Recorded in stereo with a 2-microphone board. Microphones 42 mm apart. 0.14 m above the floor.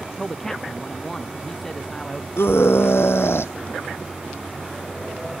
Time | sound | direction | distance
0.2 | a man speaking | 10° left (ahead or behind) | ?
2.4 | a scream | 75° left (ahead or behind) | ?